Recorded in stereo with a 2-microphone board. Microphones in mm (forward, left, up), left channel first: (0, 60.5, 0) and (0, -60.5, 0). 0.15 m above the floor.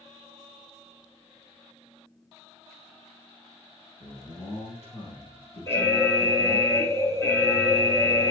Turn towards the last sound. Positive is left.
turn(degrees=20)  # may be behind; listen again after turning